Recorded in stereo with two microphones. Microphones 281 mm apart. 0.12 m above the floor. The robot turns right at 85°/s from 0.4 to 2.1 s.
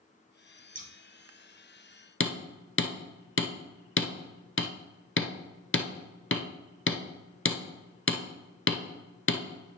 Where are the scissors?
30° right (ahead or behind), 1.0 m.